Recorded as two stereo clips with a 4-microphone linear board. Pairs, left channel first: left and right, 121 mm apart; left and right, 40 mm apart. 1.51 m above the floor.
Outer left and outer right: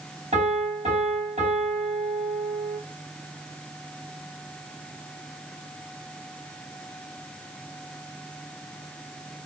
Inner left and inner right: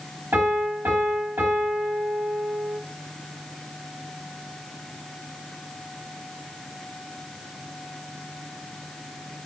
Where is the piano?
65° right (ahead or behind), 4.5 m.